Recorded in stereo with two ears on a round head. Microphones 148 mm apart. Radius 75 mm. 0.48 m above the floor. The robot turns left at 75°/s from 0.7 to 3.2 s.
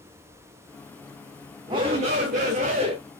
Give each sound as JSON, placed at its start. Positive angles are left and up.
{"t": 1.7, "sound": "a shout", "azimuth_deg": -35, "distance_m": 0.9}